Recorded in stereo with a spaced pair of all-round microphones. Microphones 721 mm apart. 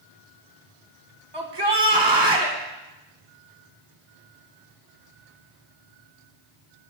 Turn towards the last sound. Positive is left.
turn(degrees=-35)  # may be behind; listen again after turning